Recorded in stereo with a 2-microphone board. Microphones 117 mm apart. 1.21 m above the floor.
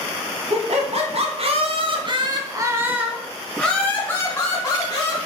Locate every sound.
0.5 s laughter: 65° right (ahead or behind), 1.4 m; by 5.2 s 30° left (ahead or behind), 1.5 m